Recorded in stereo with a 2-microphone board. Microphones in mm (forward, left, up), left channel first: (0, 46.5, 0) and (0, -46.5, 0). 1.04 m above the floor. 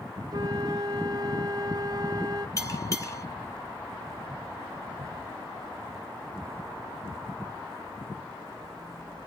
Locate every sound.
0.3 s a flute: 45° right (ahead or behind), 0.8 m
2.6 s a bell: 35° left (ahead or behind), 1.0 m